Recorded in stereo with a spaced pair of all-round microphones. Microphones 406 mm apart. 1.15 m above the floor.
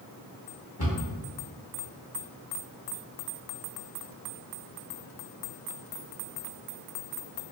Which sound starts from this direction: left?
A cupboard door, at 0.8 s.